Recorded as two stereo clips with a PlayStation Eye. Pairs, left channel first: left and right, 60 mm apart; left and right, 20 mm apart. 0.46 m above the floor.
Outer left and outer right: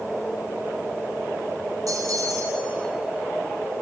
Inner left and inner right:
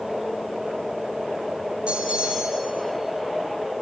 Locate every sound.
1.9 s a bell: 75° right (ahead or behind), 4 m